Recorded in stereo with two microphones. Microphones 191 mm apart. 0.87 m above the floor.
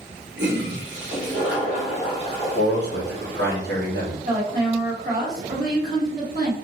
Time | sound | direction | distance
0.4 | a toilet flushing | 65° right (ahead or behind) | 1.6 m
2.5 | a man speaking | 65° right (ahead or behind) | 1.8 m
4.2 | a woman speaking | 50° right (ahead or behind) | 1.5 m